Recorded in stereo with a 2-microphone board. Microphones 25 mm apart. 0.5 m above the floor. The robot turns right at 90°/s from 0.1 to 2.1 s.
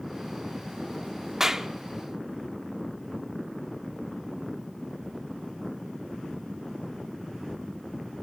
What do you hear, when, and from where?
1.4 s a clap: 20° right (ahead or behind), 0.8 m; by 1.7 s 15° right (ahead or behind), 0.8 m